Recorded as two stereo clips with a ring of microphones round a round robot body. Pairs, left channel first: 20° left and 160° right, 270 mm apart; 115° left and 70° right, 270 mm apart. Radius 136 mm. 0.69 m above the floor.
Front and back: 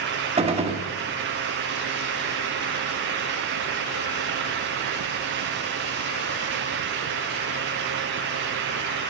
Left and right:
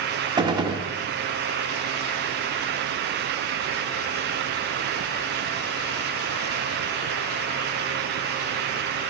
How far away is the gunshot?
About 0.8 m.